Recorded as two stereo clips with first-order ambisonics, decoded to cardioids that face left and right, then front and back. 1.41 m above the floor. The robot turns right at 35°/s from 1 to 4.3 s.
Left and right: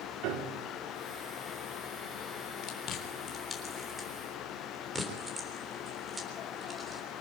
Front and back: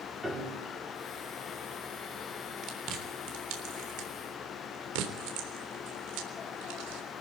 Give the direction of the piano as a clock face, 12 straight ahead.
3 o'clock.